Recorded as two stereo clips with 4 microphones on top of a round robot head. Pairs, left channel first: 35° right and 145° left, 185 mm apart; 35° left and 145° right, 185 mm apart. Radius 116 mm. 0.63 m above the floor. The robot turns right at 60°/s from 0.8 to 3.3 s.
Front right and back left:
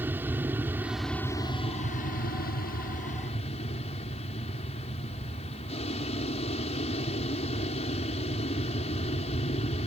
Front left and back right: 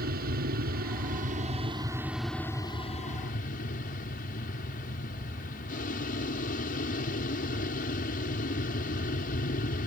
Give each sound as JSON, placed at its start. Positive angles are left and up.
{"t": 0.0, "sound": "an aircraft", "azimuth_deg": -140}